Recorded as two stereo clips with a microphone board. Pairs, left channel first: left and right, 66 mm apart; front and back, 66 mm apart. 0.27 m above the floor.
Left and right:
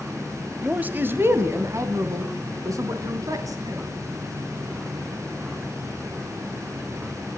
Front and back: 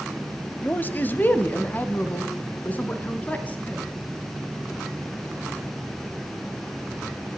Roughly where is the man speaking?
Ahead right.